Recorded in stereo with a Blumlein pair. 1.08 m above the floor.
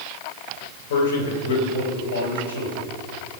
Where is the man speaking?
60° left, 4 m; by 2.9 s 75° left, 4.5 m.